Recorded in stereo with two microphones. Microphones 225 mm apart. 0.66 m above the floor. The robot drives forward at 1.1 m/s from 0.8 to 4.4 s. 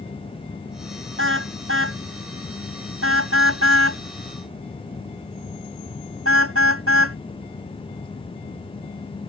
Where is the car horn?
65° right (ahead or behind); by 7.2 s 75° right (ahead or behind).